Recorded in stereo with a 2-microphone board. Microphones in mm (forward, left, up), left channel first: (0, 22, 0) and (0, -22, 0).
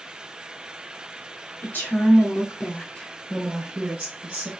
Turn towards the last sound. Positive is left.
turn(degrees=-30)  # may be behind; listen again after turning